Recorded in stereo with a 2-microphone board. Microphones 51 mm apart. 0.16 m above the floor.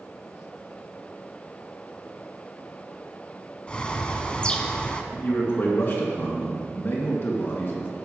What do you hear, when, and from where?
3.7 s a bird: 20° left (ahead or behind), 0.7 m
5.1 s a man speaking: 50° left (ahead or behind), 2 m